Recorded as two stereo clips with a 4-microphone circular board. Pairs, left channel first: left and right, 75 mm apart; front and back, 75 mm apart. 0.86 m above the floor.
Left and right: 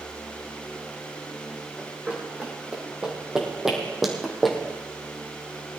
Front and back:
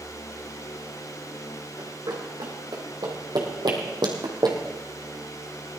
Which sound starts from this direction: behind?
Running footsteps, at 1.8 s.